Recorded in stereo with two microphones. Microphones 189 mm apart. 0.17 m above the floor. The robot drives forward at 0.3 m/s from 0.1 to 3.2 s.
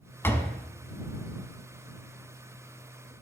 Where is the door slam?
15° left (ahead or behind), 0.7 m; by 0.6 s 10° left (ahead or behind), 0.7 m.